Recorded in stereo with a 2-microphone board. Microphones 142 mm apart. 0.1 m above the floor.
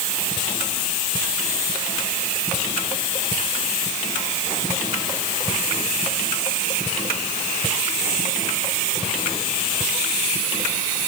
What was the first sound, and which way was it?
Only background noise.